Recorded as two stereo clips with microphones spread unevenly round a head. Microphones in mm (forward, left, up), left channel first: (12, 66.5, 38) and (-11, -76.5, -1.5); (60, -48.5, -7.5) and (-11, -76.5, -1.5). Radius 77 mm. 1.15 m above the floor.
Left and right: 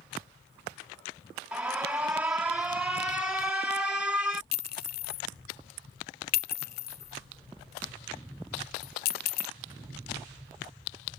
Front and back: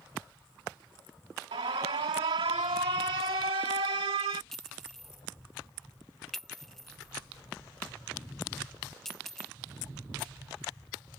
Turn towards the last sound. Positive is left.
turn(degrees=110)